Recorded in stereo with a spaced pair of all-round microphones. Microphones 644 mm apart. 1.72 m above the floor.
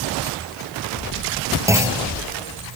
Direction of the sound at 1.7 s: 5° right (ahead or behind).